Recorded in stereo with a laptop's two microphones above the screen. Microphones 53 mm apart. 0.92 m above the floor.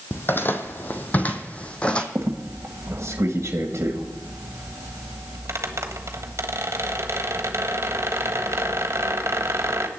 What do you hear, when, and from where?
0.1 s footsteps: 45° left (ahead or behind), 1.3 m; by 2.0 s 20° left (ahead or behind), 1.6 m
2.1 s a squeak: 55° right (ahead or behind), 1.5 m